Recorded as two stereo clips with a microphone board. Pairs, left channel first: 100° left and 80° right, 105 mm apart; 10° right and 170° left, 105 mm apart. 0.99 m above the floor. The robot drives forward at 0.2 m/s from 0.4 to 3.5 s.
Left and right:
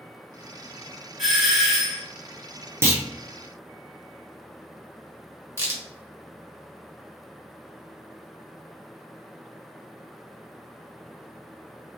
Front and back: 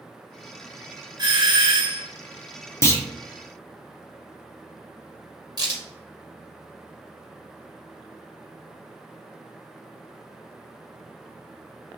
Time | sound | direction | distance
1.2 | a doorbell | 165° right | 1.5 m
2.8 | a clunk | 45° right | 0.6 m
5.6 | a crack | 140° right | 1.4 m